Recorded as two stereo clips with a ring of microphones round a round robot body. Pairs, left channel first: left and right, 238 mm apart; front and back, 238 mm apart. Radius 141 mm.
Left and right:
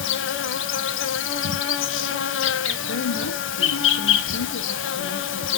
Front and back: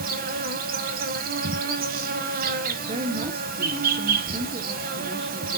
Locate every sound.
0.0 s an insect: 120° left, 0.9 m
2.9 s a woman speaking: 115° left, 1.2 m